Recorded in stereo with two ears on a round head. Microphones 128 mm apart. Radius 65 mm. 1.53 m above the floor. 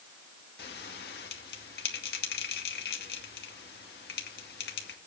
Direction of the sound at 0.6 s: 80° left.